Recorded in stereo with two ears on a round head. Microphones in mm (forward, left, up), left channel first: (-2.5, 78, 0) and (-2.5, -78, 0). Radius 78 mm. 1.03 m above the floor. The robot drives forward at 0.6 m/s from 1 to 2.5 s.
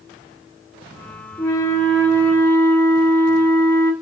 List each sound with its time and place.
1.4 s a flute: 20° left (ahead or behind), 1.5 m; by 3.9 s 15° left (ahead or behind), 2 m